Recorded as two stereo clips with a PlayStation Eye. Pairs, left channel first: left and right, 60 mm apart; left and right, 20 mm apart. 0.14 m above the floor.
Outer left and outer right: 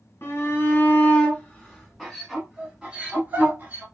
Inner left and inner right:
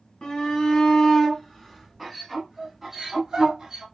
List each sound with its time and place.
0.2 s a shout: 40° left (ahead or behind), 1.6 m; by 3.8 s 30° right (ahead or behind), 1.6 m